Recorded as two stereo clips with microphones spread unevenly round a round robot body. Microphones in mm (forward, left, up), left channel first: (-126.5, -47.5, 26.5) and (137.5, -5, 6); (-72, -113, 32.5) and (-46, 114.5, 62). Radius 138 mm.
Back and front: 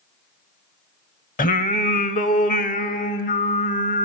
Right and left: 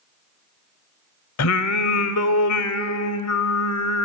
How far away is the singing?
About 0.9 m.